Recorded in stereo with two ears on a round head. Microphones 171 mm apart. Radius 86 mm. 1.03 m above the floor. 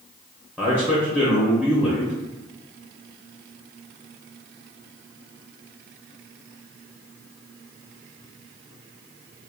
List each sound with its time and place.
0.6 s a man speaking: 5° left (ahead or behind), 0.8 m